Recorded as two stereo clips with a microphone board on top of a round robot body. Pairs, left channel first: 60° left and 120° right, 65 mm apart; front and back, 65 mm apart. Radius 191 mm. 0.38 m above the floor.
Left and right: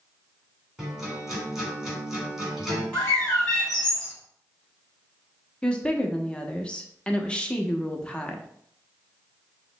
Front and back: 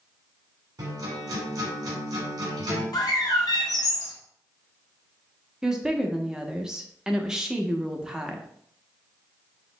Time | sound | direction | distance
0.8 | a guitar | 155° left | 1.6 m
2.9 | a bird | 15° right | 1.2 m
5.6 | a woman speaking | 115° left | 0.9 m